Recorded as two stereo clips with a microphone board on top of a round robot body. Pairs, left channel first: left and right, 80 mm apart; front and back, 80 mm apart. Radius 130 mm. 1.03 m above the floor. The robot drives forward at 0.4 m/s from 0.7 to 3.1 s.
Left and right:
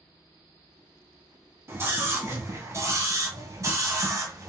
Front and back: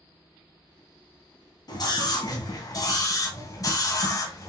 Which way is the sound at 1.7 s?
30° right.